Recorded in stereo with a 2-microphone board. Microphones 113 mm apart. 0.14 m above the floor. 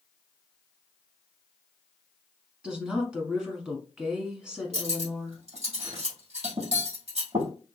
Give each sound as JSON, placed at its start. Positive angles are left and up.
{"t": 2.6, "sound": "a woman speaking", "side_deg": -10, "distance_m": 1.1}
{"t": 4.7, "sound": "cutlery clinking", "side_deg": -70, "distance_m": 2.5}